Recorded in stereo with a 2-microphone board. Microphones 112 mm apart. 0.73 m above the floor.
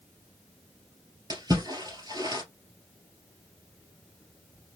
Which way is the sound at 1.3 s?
35° right (ahead or behind).